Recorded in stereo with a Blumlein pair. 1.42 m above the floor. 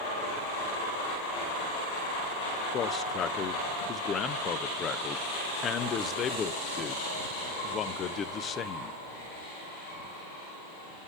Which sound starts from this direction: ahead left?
A man speaking, at 2.7 s.